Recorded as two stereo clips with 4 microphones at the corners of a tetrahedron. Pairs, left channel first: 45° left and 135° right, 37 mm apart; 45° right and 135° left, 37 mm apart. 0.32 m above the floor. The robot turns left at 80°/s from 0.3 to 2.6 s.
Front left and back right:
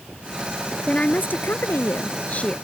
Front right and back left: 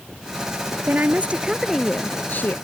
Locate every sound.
0.9 s a woman speaking: 115° left; by 2.5 s 20° right